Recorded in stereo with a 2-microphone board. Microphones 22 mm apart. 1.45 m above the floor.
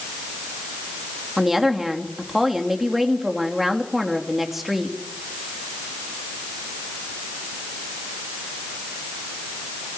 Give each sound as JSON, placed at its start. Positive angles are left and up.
{"t": 1.4, "sound": "a woman speaking", "side_deg": -15, "distance_m": 3.0}